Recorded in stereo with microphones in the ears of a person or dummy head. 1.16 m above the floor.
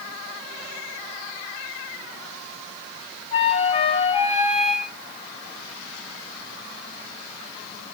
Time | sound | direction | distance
3.3 | a flute | 35° left (ahead or behind) | 1.3 m